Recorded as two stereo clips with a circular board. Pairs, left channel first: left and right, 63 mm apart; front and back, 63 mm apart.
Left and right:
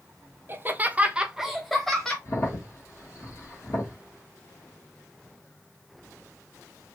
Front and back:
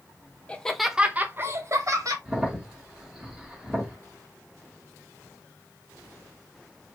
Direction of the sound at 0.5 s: 65° right.